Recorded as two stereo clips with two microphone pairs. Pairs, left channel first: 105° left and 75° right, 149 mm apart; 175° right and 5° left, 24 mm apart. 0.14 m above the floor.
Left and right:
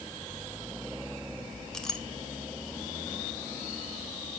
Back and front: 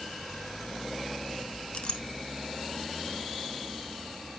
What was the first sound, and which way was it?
A clink, 170° right.